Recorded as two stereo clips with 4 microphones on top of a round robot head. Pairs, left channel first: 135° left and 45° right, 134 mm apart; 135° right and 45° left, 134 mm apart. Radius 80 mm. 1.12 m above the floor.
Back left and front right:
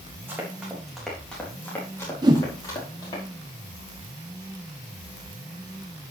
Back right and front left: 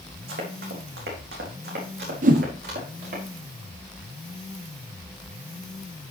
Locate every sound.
0.3 s running footsteps: 30° left, 3.5 m; by 3.2 s 75° left, 5.5 m
2.2 s a whoosh: 15° left, 0.9 m